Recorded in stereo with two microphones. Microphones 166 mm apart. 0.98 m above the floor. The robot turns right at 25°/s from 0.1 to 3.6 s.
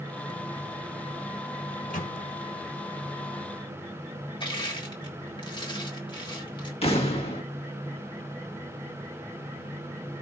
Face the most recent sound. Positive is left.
turn(degrees=35)  # may be behind; listen again after turning